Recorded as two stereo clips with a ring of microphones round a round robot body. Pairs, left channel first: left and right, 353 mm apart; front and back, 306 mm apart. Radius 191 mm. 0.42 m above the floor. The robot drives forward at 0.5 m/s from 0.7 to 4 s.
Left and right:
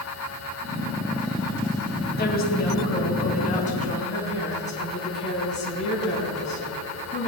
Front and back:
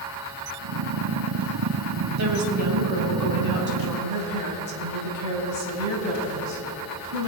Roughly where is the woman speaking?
Behind left.